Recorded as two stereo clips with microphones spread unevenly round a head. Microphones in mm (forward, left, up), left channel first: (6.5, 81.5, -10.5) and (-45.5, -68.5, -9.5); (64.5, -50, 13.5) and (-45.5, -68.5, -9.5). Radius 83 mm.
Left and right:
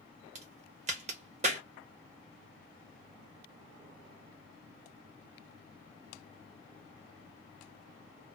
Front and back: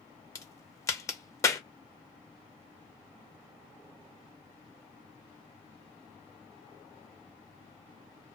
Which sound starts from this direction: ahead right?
A crack, at 0.3 s.